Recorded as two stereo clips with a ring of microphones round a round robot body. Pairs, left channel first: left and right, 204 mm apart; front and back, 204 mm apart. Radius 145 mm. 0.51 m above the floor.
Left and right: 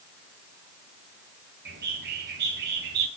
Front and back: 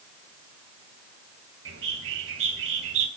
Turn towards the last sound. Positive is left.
turn(degrees=-140)